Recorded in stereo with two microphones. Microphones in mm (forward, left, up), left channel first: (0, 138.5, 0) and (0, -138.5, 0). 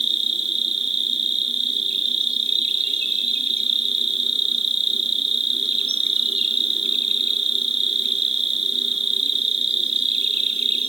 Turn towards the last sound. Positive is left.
turn(degrees=-20)  # may be behind; listen again after turning